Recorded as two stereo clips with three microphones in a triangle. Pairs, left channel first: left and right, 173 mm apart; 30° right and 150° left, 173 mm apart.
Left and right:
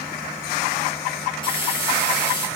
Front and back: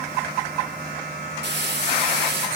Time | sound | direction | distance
1.4 | frying | 150° left | 6 m